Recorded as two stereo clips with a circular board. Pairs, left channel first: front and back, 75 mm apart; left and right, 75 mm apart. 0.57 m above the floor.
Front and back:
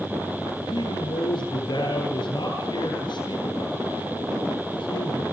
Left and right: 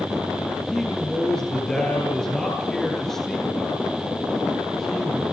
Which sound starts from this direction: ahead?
A man speaking, at 0.7 s.